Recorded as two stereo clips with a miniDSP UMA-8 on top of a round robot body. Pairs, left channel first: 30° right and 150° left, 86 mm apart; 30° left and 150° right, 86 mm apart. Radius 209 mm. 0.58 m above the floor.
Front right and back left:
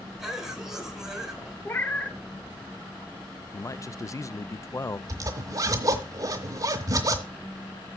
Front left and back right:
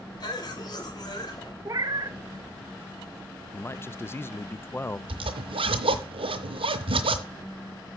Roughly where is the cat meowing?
Right.